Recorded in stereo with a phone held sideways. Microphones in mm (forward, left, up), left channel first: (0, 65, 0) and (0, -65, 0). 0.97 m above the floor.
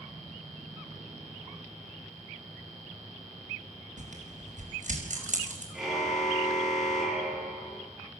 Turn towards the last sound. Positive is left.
turn(degrees=-5)  # may be behind; listen again after turning